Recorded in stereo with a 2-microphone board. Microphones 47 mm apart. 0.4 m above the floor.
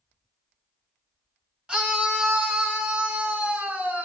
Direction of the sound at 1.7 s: 20° right (ahead or behind).